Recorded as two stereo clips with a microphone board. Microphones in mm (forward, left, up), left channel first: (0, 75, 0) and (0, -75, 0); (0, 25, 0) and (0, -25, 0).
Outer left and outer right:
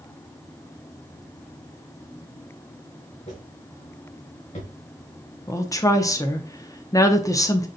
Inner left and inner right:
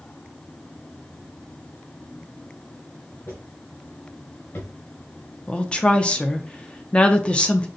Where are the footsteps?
50° left (ahead or behind), 3 m; by 4.7 s 55° left (ahead or behind), 2 m.